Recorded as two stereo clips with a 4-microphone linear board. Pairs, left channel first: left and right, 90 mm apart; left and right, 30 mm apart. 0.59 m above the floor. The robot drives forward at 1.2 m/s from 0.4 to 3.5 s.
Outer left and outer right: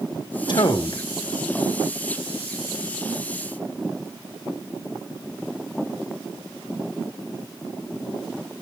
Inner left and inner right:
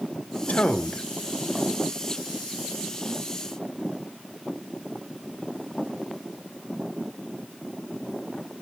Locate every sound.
0.5 s a man speaking: 55° left (ahead or behind), 1.7 m; by 1.0 s 45° left (ahead or behind), 2 m